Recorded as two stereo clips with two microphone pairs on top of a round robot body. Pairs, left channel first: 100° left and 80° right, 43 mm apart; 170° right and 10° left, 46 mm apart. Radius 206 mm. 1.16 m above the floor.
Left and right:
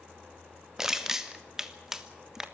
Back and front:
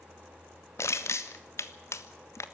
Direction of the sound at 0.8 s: 155° right.